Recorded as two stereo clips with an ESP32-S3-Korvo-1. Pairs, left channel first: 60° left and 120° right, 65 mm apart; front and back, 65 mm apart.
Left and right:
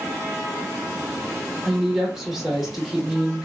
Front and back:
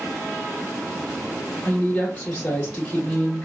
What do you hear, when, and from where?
1.6 s a woman speaking: 30° right, 0.8 m